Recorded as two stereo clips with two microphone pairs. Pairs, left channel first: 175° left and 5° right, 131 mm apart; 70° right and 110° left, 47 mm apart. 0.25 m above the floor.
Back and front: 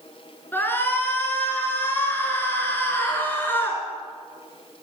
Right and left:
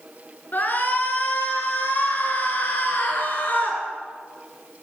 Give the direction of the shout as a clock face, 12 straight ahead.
4 o'clock.